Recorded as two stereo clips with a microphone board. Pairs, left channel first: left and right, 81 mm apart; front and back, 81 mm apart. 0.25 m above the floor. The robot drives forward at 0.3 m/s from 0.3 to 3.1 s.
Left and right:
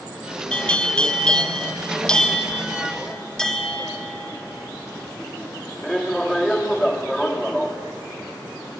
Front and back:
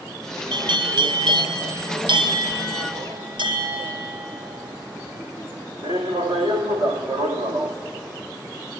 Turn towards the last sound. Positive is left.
turn(degrees=175)